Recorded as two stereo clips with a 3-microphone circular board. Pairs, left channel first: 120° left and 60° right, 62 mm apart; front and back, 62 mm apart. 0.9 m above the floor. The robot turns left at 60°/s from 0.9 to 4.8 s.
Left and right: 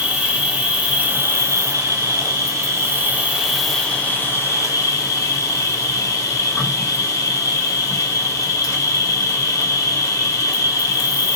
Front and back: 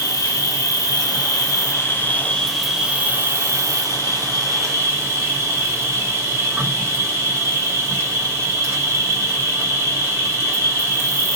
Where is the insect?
10° left, 1.2 m; by 11.4 s 135° left, 1.2 m.